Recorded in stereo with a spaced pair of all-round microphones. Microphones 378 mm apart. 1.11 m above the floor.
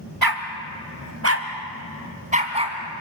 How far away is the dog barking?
About 1.7 m.